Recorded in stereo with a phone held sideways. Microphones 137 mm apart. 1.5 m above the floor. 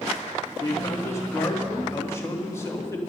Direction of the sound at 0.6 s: 20° left (ahead or behind).